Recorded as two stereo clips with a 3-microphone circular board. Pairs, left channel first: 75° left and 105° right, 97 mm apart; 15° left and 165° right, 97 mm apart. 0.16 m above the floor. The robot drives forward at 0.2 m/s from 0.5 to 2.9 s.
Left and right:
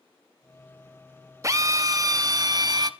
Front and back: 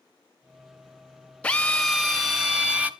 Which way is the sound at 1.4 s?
60° right.